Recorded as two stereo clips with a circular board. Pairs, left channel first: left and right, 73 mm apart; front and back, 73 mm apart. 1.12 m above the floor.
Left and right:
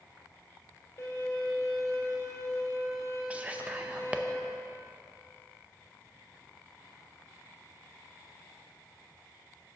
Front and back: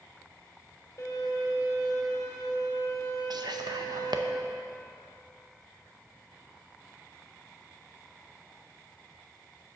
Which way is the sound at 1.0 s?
45° left.